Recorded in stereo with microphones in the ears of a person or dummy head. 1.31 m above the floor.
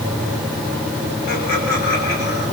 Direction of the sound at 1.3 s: 55° left (ahead or behind).